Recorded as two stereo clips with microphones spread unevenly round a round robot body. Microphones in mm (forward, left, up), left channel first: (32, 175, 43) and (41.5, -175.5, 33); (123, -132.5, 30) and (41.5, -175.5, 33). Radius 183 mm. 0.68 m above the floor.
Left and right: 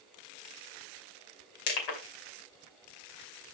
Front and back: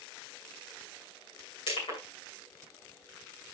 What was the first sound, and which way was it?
Crushing, 80° left.